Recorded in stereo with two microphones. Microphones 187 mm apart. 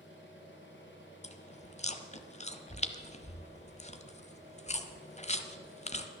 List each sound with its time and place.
0.0 s an engine running: 80° left, 3 m
1.2 s chewing: 35° left (ahead or behind), 0.8 m